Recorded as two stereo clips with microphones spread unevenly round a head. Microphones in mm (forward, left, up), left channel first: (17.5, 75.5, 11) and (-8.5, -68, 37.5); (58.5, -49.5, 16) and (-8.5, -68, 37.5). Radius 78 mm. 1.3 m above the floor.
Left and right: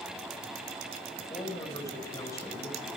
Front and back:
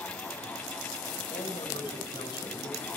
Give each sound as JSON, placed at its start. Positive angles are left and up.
{"t": 1.2, "sound": "a man speaking", "azimuth_deg": 10, "distance_m": 5.5}